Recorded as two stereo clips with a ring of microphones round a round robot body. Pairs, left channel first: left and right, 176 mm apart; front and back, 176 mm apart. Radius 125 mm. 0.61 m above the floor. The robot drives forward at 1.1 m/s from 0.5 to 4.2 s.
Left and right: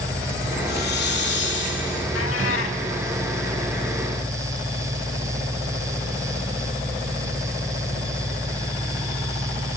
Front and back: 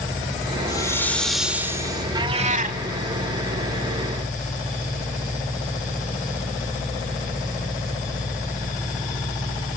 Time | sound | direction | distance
0.7 | a hiss | 65° left | 1.9 m
2.1 | a cat meowing | 110° left | 1.0 m